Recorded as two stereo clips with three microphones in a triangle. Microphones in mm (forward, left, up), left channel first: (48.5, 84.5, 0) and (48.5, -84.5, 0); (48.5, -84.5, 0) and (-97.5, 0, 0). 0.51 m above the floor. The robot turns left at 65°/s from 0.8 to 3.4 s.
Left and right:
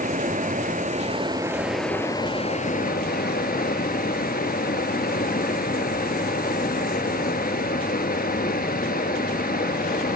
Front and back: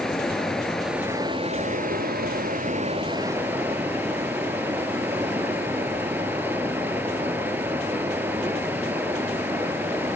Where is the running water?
115° right, 0.9 m; by 10.2 s 75° left, 0.9 m.